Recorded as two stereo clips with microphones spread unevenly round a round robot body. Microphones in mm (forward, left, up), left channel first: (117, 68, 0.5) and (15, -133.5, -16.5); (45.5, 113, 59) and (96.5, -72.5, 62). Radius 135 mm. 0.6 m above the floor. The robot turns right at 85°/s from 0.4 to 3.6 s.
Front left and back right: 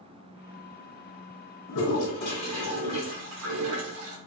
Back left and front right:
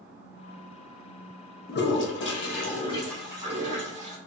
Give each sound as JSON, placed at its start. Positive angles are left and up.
{"t": 1.7, "sound": "a toilet flushing", "azimuth_deg": 70, "distance_m": 0.6}